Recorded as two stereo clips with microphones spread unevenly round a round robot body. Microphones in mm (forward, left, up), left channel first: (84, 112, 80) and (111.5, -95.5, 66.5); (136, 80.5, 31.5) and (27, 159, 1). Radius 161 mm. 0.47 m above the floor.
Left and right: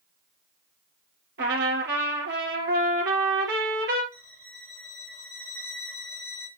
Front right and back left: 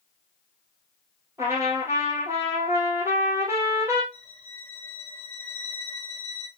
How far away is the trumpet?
About 3 m.